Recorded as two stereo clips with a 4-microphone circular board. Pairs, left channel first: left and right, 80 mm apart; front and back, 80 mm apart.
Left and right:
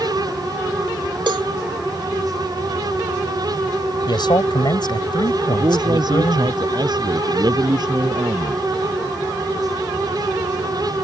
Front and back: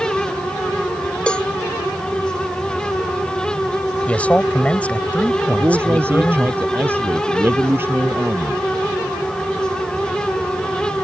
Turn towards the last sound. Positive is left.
turn(degrees=-120)